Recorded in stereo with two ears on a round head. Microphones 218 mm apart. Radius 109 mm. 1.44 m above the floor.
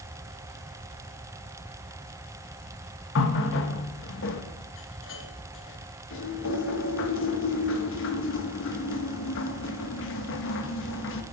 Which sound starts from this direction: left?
A running tap, at 3.1 s.